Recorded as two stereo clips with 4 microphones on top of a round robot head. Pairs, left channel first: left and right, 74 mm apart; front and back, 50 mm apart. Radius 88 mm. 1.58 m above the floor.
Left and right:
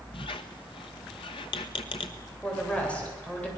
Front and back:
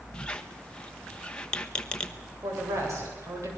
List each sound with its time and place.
0.1 s a squeak: 70° left, 0.9 m
2.4 s a woman speaking: 165° left, 8.5 m